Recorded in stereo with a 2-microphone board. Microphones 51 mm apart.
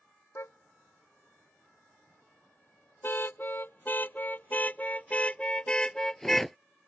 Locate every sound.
0.3 s a car horn: 60° left (ahead or behind); by 6.6 s 5° left (ahead or behind)